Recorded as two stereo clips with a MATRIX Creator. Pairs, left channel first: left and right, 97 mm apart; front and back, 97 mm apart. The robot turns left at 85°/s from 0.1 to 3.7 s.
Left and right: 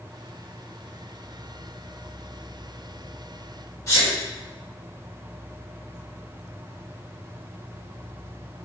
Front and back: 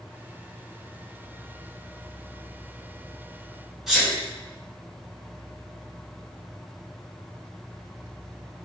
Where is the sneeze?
95° left, 1.3 m.